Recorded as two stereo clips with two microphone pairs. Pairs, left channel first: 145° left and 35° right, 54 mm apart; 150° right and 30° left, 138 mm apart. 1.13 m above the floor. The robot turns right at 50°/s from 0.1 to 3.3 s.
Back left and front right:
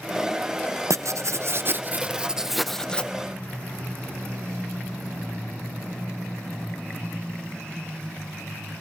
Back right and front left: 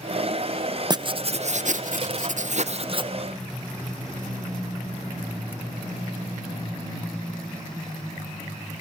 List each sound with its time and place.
0.9 s writing: 30° right, 0.6 m; by 3.1 s 80° left, 0.6 m